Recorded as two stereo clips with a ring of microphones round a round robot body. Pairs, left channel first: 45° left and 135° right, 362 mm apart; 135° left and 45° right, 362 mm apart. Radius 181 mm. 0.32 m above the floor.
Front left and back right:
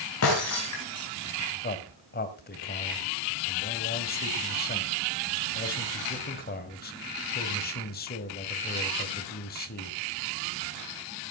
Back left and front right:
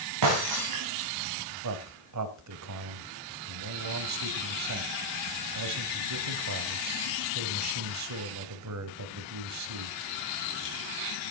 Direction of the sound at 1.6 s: 15° right.